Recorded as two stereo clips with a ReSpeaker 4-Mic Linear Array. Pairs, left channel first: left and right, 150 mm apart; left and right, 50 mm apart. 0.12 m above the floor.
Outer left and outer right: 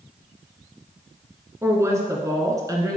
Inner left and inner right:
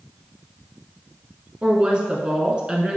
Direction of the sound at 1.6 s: 20° right (ahead or behind).